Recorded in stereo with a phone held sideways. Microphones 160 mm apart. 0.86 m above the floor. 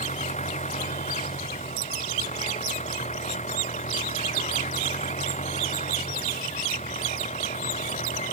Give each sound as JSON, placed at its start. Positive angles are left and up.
{"t": 0.0, "sound": "an engine running", "side_deg": 50}